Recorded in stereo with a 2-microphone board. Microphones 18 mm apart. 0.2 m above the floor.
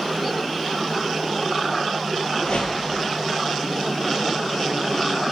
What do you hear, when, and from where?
2.4 s a whoosh: 75° left (ahead or behind), 0.9 m